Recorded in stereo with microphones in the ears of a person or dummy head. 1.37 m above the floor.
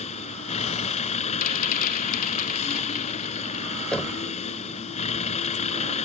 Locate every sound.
0.0 s a vehicle: 35° left (ahead or behind)
1.4 s a rattle: 45° left (ahead or behind)
3.9 s knocking: 5° left (ahead or behind)